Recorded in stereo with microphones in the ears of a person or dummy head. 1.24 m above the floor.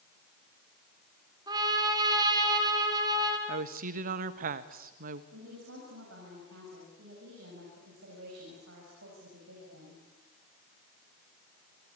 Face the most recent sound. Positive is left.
turn(degrees=-80)